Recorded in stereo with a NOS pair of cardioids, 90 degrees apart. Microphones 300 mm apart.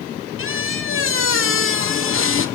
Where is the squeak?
45° left, 2 m.